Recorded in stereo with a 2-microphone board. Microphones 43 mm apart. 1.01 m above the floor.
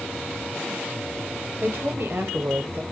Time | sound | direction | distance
1.6 | a woman speaking | 65° right (ahead or behind) | 1.6 m